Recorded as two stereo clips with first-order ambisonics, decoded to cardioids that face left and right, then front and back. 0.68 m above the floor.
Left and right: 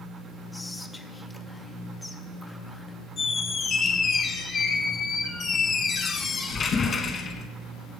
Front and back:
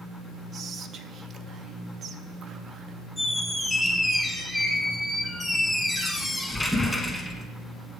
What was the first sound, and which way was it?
Whispering, 160° left.